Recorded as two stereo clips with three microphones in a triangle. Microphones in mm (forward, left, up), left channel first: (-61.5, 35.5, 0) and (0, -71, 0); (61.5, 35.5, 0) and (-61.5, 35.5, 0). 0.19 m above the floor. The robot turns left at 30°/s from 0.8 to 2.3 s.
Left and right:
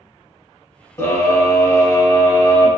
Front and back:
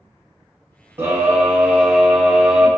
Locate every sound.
1.0 s a scream: 140° left, 1.3 m; by 2.7 s 100° left, 1.3 m